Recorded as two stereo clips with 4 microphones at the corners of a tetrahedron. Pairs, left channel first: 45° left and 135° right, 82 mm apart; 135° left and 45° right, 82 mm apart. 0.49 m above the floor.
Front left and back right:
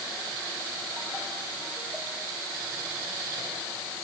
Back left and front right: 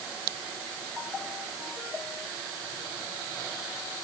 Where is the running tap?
I don't hear a running tap.